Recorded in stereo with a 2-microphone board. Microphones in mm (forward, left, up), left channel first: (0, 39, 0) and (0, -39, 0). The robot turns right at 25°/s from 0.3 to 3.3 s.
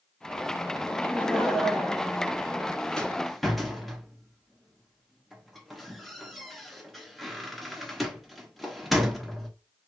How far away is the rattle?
About 1.1 m.